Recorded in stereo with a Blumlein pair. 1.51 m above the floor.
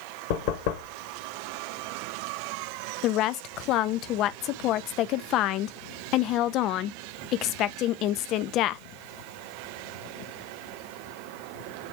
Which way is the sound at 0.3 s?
50° left.